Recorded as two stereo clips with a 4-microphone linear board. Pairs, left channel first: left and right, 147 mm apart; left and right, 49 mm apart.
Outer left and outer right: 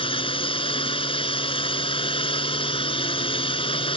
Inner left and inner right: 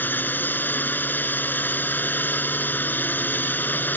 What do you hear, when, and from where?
0.0 s a drone: 40° left (ahead or behind)